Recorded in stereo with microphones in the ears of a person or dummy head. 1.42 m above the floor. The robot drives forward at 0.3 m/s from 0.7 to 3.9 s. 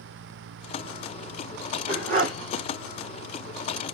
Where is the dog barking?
45° right (ahead or behind), 3 m.